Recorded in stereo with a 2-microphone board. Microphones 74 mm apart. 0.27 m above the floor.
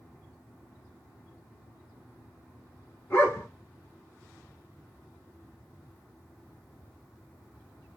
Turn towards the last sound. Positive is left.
turn(degrees=30)  # may be behind; listen again after turning